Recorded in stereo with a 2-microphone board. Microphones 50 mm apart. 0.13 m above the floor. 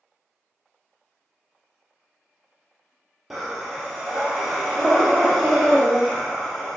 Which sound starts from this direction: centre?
Breathing, at 3.3 s.